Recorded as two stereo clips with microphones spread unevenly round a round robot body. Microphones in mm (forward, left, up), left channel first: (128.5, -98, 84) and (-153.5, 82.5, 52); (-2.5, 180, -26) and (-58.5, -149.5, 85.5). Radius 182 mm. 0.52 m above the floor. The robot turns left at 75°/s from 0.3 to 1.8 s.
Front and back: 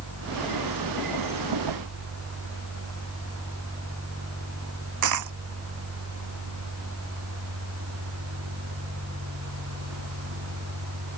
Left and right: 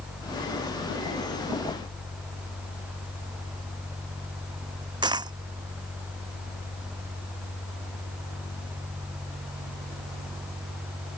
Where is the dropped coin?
175° right.